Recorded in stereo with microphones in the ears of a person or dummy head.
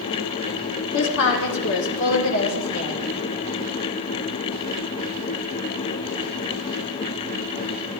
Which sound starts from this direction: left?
A woman speaking, at 0.9 s.